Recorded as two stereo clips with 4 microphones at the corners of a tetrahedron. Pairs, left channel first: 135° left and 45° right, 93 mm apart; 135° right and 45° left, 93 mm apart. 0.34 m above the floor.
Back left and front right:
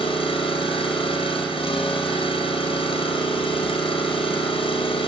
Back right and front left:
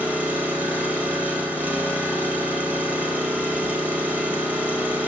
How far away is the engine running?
About 2.5 m.